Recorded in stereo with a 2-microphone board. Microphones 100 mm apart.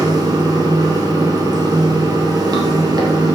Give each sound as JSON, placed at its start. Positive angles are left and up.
{"t": 0.0, "sound": "running water", "side_deg": -40, "distance_m": 1.9}